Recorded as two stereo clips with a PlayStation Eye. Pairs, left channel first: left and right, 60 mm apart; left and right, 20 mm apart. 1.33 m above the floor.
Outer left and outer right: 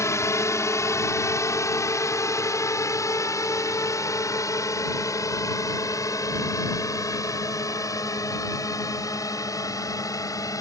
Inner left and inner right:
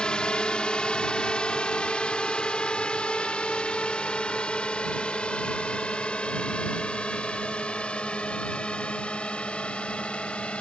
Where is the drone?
50° left (ahead or behind); by 10.6 s 70° left (ahead or behind).